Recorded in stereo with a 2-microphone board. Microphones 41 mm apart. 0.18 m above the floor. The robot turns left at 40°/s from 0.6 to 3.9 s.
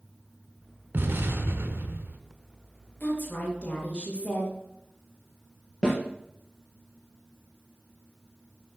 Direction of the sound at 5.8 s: 20° left (ahead or behind).